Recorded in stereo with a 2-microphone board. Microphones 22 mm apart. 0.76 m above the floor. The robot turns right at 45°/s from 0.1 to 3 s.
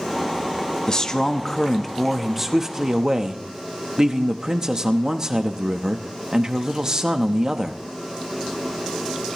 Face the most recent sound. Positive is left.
turn(degrees=-135)